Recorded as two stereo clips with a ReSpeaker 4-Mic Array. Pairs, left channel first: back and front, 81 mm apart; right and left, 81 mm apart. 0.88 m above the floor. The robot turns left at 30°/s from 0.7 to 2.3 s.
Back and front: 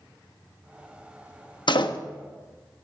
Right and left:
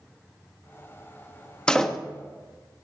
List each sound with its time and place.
1.7 s a door slam: 170° right, 0.8 m; by 2.0 s 175° right, 0.8 m